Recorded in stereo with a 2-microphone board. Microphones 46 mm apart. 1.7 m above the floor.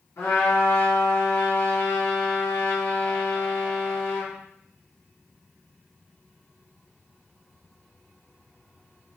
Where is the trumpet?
85° left, 2.5 m.